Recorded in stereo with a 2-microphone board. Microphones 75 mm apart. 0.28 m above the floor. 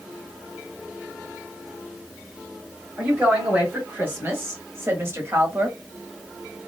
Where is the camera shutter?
No camera shutter in this recording.